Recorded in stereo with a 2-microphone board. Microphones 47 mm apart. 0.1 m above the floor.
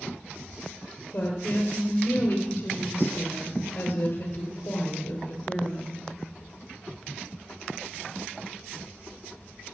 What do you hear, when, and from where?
1.1 s a woman speaking: 50° left (ahead or behind), 2.5 m